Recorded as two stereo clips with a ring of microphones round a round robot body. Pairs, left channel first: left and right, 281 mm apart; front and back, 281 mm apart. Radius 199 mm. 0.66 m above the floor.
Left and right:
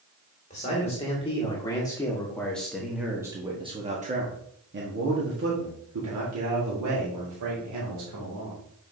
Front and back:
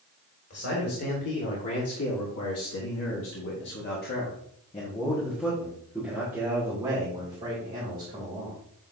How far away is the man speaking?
About 2 m.